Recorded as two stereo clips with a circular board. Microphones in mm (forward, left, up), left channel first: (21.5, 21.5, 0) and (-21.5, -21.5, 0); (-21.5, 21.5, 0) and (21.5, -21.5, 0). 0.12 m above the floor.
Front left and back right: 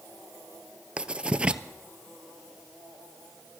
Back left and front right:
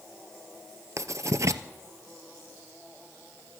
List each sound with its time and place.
1.0 s writing: 65° right, 0.6 m